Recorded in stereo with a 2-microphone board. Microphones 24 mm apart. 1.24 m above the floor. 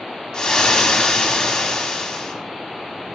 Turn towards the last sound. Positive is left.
turn(degrees=35)  # may be behind; listen again after turning